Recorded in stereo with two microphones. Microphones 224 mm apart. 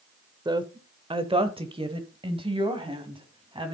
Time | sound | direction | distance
0.5 | a woman speaking | 20° right (ahead or behind) | 0.8 m